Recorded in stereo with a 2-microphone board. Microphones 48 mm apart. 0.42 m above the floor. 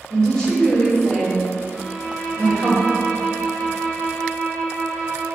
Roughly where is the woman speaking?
Centre.